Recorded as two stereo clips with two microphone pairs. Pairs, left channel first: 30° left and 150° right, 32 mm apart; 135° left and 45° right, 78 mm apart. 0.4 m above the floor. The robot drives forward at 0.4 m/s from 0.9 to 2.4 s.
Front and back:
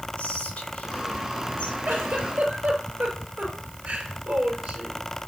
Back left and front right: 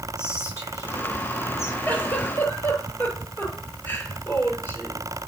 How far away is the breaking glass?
No breaking glass in this recording.